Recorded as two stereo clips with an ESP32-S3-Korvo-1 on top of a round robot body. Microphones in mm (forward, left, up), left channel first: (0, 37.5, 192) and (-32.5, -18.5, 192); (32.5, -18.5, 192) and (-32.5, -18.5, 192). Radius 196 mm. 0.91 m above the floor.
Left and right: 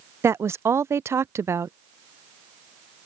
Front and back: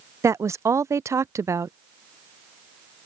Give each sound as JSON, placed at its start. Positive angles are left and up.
{"t": 0.2, "sound": "a woman speaking", "azimuth_deg": -155}